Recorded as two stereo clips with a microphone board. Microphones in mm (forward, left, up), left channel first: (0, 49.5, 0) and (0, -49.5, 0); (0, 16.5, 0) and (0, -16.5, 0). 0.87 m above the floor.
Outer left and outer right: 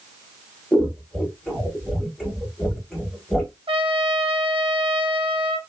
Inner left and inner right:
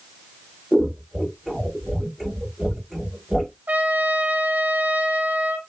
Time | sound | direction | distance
0.7 | scissors | centre (ahead or behind) | 1.2 m
3.7 | a trumpet | 65° right (ahead or behind) | 0.6 m